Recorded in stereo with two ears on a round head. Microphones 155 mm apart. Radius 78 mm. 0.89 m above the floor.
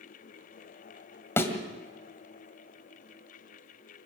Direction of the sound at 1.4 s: 15° left (ahead or behind).